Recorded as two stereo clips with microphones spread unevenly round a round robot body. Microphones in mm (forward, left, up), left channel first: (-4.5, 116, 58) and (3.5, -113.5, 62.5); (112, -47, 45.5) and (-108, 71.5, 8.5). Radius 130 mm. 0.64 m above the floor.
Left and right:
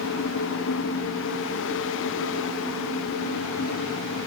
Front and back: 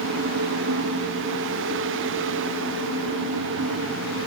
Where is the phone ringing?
No phone ringing in this recording.